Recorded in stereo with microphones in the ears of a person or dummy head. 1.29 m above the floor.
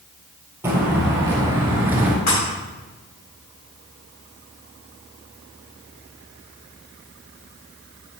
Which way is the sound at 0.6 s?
15° right (ahead or behind).